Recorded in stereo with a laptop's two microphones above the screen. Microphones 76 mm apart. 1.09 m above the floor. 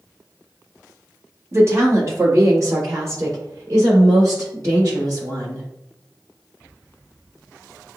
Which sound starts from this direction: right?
A woman speaking, at 1.5 s.